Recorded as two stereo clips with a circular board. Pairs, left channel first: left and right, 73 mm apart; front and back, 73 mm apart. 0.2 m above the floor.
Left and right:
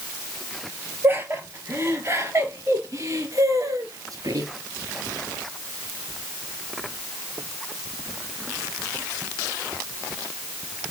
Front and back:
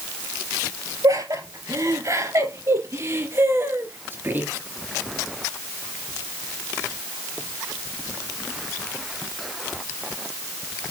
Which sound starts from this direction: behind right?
Laughter, at 1.0 s.